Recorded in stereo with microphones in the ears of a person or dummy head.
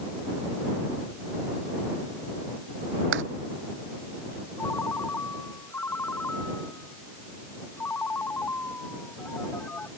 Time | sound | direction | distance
3.1 | footsteps | 70° right (ahead or behind) | ?
4.6 | a ringtone | 15° left (ahead or behind) | ?